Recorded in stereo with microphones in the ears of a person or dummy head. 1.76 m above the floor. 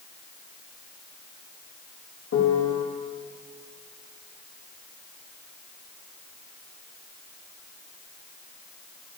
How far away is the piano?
About 1.2 m.